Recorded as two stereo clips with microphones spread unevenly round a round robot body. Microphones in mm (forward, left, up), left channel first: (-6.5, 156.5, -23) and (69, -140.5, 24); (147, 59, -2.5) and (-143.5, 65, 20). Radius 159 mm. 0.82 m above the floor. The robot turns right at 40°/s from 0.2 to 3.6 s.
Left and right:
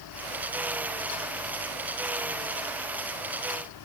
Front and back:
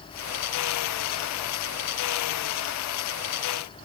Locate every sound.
Only background noise.